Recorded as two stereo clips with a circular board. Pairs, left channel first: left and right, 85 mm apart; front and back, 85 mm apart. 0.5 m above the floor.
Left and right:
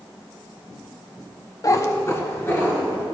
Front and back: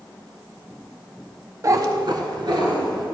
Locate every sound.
1.6 s a cat meowing: 130° left, 0.6 m; by 3.0 s 155° left, 2.5 m